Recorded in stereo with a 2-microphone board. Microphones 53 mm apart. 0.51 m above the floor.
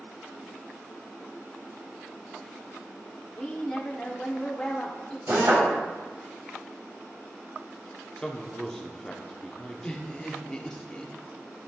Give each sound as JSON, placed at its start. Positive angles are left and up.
{"t": 3.4, "sound": "a woman speaking", "side_deg": 20, "distance_m": 1.1}
{"t": 5.3, "sound": "a drill", "side_deg": -60, "distance_m": 3.5}
{"t": 8.2, "sound": "a man speaking", "side_deg": 15, "distance_m": 0.8}
{"t": 9.8, "sound": "laughter", "side_deg": 20, "distance_m": 1.0}